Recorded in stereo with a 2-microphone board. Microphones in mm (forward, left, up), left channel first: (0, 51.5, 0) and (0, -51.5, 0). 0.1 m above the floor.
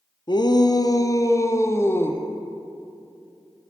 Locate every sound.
0.3 s a shout: 45° left (ahead or behind), 1.9 m; by 2.2 s 20° left (ahead or behind), 3 m